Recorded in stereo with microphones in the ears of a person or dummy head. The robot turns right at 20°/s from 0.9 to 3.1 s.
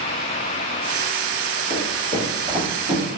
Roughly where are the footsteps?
Right.